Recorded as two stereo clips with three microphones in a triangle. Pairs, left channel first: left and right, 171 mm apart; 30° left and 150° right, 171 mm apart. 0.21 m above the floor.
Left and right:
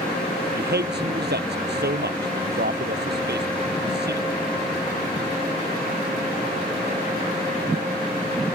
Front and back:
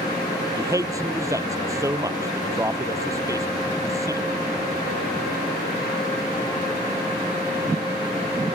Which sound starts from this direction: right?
A man speaking, at 0.5 s.